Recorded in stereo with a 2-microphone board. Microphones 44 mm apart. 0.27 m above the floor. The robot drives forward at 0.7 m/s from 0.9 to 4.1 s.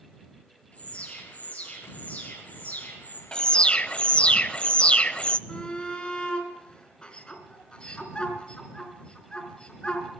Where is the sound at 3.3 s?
20° left (ahead or behind), 0.8 m; by 5.4 s 25° left (ahead or behind), 0.6 m.